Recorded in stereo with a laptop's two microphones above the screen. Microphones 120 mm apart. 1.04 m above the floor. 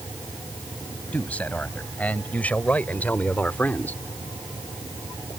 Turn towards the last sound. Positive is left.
turn(degrees=15)  # may be behind; listen again after turning